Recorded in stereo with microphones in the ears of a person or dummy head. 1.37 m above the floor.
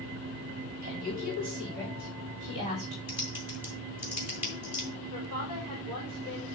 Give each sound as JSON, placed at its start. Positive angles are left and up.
{"t": 0.8, "sound": "a woman speaking", "side_deg": -45, "distance_m": 3.5}
{"t": 3.1, "sound": "typing on a keyboard", "side_deg": -10, "distance_m": 1.7}
{"t": 5.1, "sound": "a woman speaking", "side_deg": -25, "distance_m": 4.0}